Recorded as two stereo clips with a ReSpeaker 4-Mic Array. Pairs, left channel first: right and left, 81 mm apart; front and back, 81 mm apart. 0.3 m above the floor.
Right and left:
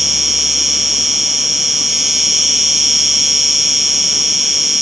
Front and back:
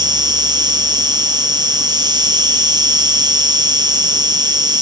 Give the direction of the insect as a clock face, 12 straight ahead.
6 o'clock.